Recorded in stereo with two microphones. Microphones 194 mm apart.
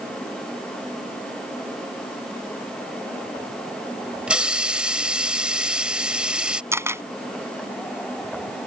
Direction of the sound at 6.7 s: 15° right (ahead or behind).